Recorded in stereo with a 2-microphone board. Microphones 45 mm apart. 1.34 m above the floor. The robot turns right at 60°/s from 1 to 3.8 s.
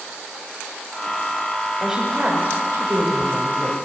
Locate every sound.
1.8 s a woman speaking: 175° right, 7.5 m; by 3.8 s 55° right, 7.5 m